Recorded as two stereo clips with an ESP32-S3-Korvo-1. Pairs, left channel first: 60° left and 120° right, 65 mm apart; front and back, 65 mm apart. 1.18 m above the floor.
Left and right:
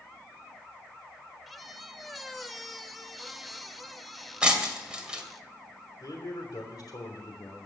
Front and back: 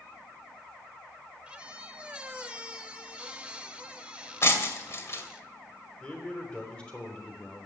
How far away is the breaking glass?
About 2 m.